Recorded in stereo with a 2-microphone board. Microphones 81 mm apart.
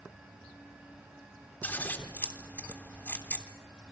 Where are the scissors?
20° left (ahead or behind), 3 m.